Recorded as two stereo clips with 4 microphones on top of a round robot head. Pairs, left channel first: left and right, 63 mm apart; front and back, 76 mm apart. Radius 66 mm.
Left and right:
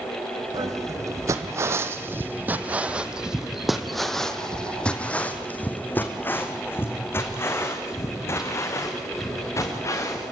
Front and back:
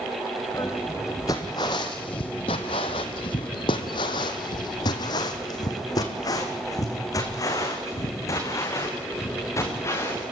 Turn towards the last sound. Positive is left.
turn(degrees=50)